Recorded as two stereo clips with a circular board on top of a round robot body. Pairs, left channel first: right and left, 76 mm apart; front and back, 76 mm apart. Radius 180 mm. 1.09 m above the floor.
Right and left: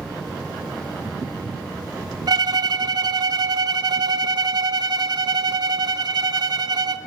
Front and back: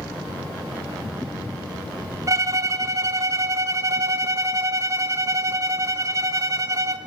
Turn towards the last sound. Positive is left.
turn(degrees=130)